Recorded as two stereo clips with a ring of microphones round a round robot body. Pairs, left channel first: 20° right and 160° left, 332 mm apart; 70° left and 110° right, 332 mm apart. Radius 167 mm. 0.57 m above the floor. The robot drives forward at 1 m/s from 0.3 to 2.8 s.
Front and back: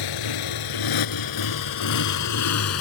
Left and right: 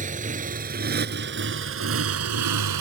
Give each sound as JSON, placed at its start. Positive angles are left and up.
{"t": 0.0, "sound": "a motorcycle", "azimuth_deg": -45}